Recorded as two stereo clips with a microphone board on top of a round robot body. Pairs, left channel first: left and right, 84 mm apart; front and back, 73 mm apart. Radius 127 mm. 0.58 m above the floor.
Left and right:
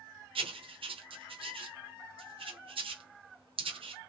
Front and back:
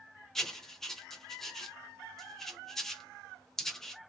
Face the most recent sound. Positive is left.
turn(degrees=-85)